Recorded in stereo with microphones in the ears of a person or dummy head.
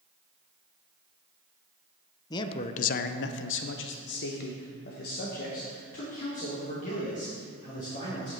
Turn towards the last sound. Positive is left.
turn(degrees=40)  # may be behind; listen again after turning